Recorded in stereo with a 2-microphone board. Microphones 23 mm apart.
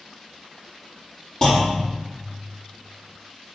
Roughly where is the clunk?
Left.